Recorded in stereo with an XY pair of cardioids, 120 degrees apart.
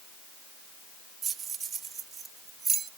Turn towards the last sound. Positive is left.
turn(degrees=-40)